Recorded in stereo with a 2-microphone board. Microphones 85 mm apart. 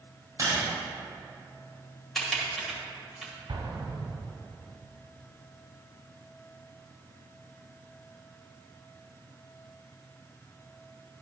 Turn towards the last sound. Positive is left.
turn(degrees=-75)  # may be behind; listen again after turning